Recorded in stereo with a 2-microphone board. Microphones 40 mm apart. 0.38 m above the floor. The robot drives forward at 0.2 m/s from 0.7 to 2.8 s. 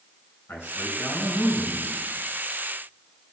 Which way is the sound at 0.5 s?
55° left (ahead or behind).